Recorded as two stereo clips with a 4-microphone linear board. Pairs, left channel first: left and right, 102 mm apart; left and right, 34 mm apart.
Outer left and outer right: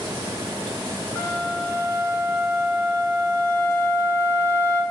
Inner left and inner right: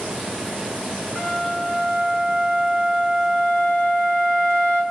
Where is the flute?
25° left (ahead or behind), 1.8 m.